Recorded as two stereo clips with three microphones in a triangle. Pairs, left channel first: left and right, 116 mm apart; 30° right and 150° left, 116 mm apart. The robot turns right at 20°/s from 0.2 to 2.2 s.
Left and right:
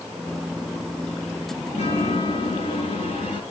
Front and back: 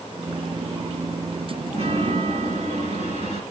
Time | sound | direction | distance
1.7 | a chime | 120° left | 7 m